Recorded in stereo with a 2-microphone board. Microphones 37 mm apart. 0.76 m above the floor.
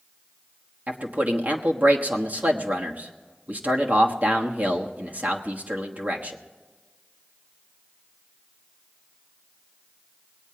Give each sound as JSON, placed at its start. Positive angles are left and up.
{"t": 0.9, "sound": "a man speaking", "side_deg": -45, "distance_m": 1.3}